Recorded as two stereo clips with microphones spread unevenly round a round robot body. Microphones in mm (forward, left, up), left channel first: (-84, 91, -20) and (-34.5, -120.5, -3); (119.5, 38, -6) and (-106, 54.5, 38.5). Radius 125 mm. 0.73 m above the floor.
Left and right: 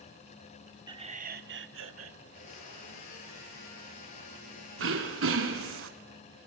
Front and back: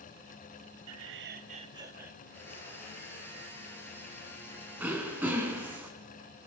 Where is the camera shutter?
I don't hear a camera shutter.